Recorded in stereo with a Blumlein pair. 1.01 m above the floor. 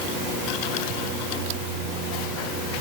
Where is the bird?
No bird in this recording.